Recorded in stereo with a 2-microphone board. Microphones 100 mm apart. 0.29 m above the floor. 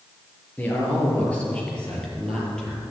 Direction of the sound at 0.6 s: 20° left (ahead or behind).